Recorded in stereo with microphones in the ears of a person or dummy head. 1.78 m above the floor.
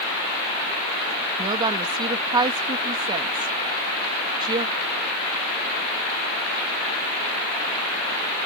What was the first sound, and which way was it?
A woman speaking, 25° right (ahead or behind).